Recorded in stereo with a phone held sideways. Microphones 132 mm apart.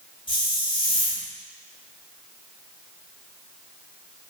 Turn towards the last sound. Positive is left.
turn(degrees=35)  # may be behind; listen again after turning